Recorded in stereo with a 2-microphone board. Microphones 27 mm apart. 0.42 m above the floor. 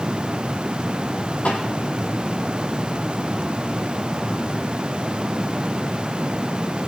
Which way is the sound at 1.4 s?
70° left (ahead or behind).